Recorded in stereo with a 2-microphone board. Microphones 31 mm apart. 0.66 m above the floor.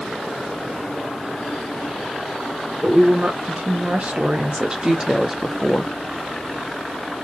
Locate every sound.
2.8 s a woman speaking: 60° right (ahead or behind), 2.5 m; by 5.9 s 10° left (ahead or behind), 1.2 m